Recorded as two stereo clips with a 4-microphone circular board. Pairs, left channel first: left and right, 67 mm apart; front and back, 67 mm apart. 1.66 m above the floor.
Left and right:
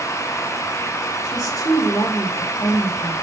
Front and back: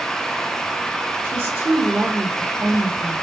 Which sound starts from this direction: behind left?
A woman speaking, at 1.2 s.